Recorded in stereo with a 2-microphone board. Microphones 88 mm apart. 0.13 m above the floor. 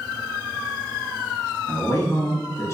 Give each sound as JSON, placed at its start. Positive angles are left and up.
{"t": 1.7, "sound": "a man speaking", "side_deg": 30, "distance_m": 1.3}